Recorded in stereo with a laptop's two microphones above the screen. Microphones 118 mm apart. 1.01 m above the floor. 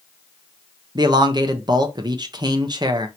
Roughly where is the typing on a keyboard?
No typing on a keyboard in this recording.